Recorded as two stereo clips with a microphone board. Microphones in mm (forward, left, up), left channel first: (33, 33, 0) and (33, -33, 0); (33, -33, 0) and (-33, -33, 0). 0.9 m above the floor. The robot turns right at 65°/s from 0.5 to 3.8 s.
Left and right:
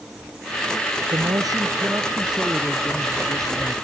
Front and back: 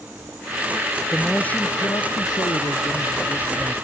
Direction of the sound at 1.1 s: 90° right.